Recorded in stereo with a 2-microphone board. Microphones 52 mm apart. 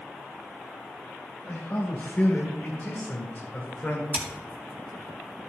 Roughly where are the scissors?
Right.